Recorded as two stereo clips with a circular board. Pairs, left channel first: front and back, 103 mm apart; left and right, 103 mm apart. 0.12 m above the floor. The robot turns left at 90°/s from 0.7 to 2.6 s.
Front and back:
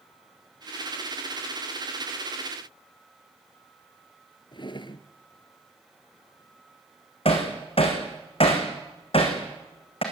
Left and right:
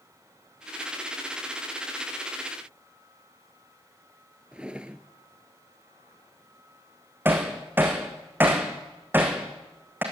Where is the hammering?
20° right, 4.5 m.